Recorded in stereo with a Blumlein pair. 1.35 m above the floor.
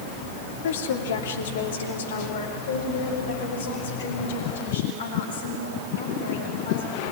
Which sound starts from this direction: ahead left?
A woman speaking, at 0.6 s.